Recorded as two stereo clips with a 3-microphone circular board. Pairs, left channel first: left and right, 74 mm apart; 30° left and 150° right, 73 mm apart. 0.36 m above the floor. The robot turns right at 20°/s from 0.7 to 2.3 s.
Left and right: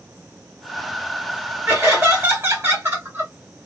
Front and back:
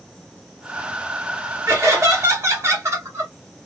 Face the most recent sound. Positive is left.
turn(degrees=-130)